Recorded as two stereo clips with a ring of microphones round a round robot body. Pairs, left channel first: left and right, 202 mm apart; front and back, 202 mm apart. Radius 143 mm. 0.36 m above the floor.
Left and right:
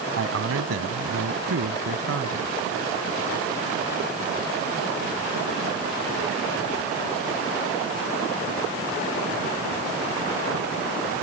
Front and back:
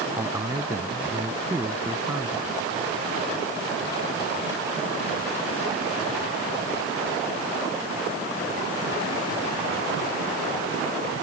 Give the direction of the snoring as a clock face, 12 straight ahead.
No snoring in this recording.